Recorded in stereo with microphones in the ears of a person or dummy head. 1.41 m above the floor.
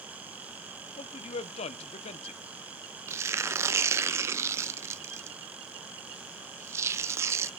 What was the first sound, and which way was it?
A man speaking, 40° left (ahead or behind).